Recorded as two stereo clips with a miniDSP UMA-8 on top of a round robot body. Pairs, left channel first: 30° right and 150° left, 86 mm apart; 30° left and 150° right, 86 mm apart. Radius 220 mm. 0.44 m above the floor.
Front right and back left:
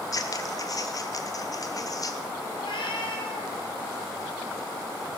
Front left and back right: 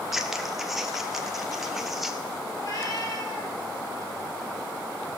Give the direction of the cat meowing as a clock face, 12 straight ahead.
1 o'clock.